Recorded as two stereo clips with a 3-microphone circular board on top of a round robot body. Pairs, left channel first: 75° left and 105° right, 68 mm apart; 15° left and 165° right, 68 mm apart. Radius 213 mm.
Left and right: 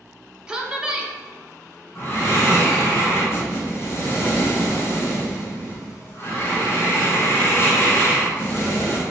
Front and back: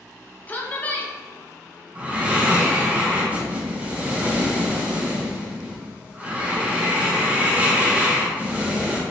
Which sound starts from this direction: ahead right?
A woman speaking, at 0.5 s.